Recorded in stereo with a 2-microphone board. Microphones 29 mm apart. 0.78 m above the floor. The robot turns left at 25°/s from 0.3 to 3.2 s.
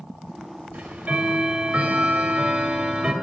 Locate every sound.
0.7 s ticking: 85° right, 1.0 m; by 3.1 s 145° right, 1.0 m